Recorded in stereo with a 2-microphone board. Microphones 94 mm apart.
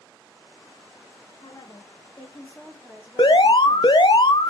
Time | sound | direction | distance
1.4 | a woman speaking | 55° left (ahead or behind) | 1.3 m
3.2 | an alarm | 60° left (ahead or behind) | 0.5 m